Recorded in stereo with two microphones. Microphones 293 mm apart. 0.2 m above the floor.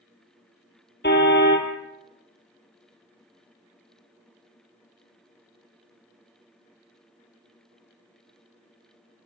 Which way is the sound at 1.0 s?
40° left (ahead or behind).